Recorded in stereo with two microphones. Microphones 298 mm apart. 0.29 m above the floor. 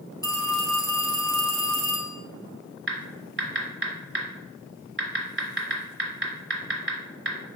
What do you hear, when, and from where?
0.2 s a phone ringing: 15° left (ahead or behind), 1.1 m
2.9 s typing on a keyboard: 45° right (ahead or behind), 1.3 m